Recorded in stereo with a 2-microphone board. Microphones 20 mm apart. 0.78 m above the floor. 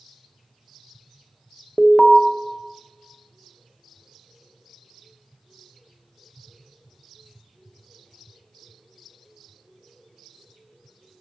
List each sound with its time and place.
1.8 s an alarm: centre (ahead or behind), 0.5 m